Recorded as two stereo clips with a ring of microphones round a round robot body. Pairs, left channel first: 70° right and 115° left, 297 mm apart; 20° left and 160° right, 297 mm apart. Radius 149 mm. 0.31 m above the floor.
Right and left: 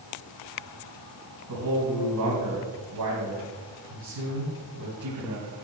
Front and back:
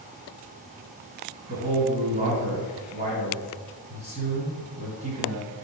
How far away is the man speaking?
About 2 m.